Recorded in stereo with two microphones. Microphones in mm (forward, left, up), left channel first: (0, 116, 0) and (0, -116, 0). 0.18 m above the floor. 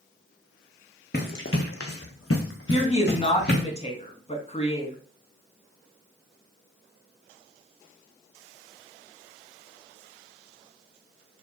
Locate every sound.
1.1 s running footsteps: 45° left (ahead or behind), 0.9 m; by 3.6 s 40° left (ahead or behind), 1.5 m
2.7 s a woman speaking: 25° left (ahead or behind), 1.3 m